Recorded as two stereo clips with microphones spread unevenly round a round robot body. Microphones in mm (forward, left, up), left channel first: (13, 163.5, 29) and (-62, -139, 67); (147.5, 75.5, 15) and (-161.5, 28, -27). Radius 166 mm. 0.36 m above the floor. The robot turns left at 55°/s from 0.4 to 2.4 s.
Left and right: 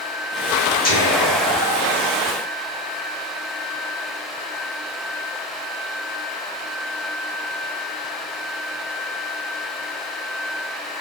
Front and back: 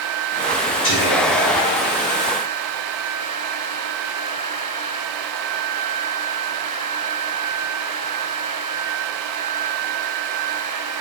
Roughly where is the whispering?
Ahead left.